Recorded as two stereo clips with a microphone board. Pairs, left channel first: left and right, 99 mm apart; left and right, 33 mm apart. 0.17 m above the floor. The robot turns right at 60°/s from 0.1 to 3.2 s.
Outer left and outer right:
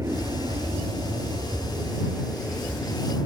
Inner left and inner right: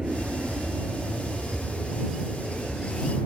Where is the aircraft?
145° right; by 3.3 s 45° left.